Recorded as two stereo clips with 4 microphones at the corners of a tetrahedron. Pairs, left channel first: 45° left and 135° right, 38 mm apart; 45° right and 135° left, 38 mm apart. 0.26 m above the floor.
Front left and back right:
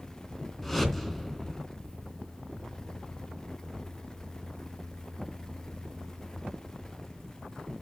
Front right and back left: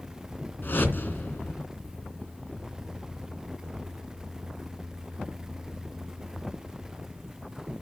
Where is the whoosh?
35° right, 2.5 m.